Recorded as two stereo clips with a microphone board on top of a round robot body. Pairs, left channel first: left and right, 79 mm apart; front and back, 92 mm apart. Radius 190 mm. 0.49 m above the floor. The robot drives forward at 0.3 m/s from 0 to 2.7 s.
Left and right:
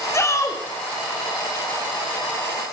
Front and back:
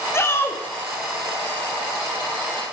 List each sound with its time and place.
0.1 s a shout: 50° left, 1.3 m; by 0.6 s 60° left, 1.3 m